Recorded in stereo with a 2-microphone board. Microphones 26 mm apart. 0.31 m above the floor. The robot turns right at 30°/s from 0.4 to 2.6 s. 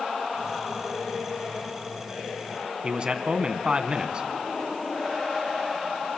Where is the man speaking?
35° right (ahead or behind), 2.5 m.